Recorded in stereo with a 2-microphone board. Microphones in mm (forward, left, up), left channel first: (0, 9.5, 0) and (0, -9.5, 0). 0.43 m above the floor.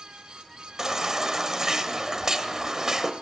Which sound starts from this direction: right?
A baby crying, at 0.8 s.